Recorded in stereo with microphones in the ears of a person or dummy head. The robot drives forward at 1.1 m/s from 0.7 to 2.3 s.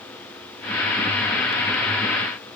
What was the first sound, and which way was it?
Only background noise.